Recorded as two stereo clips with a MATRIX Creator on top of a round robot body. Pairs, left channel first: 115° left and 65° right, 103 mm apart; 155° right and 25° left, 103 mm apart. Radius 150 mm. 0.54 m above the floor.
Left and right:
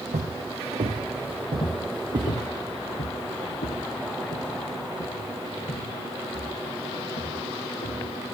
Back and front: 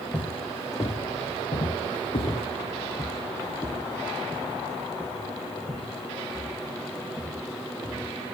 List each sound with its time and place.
0.1 s footsteps: 85° right, 2 m; by 2.5 s 125° right, 1.1 m
1.6 s footsteps: 160° left, 0.7 m; by 8.2 s 130° left, 4.5 m